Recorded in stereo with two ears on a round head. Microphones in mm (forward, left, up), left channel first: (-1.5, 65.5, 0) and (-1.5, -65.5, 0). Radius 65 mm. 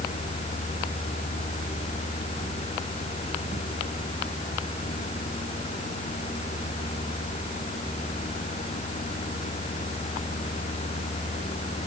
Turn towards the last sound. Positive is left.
No sound to turn to.